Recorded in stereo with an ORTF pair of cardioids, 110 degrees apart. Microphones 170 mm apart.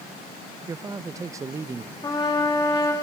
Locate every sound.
0.7 s a man speaking: 20° right, 0.7 m
2.0 s a trumpet: 25° left, 3 m